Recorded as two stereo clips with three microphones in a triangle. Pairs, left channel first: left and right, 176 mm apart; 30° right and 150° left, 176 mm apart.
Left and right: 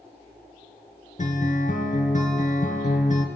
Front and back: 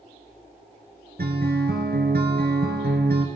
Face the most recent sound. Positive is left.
turn(degrees=130)